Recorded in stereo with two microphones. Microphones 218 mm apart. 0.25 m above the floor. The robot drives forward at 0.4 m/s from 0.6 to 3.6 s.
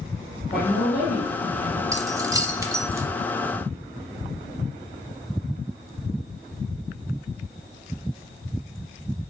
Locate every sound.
0.5 s a woman speaking: 40° left (ahead or behind), 2.5 m
1.9 s keys jangling: 15° right (ahead or behind), 0.6 m